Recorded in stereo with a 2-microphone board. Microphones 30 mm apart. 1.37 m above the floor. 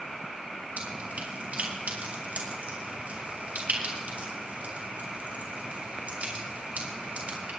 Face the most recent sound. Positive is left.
turn(degrees=-60)  # may be behind; listen again after turning